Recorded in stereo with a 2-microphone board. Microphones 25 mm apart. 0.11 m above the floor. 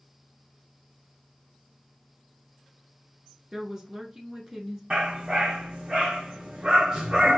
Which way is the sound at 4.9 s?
35° right (ahead or behind).